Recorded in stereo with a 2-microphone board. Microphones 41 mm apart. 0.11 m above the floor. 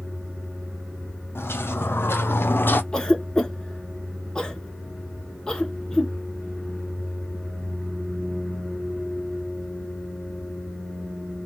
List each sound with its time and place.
1.4 s footsteps: 85° left, 1.3 m; by 2.8 s 60° left (ahead or behind), 0.7 m
2.9 s a cough: 20° left (ahead or behind), 1.1 m